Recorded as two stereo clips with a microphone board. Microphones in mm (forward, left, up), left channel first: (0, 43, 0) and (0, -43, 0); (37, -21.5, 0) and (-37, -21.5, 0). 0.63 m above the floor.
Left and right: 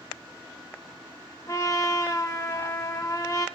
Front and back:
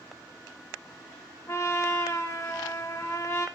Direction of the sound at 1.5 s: 45° left.